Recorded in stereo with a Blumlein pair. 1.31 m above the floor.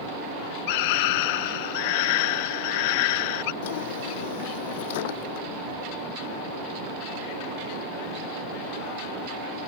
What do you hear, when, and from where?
0.7 s a scream: 50° left
3.6 s a drawer: 50° left